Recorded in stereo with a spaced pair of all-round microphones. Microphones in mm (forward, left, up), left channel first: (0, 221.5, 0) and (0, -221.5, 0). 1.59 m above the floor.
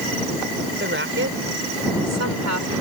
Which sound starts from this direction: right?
A woman speaking, at 0.8 s.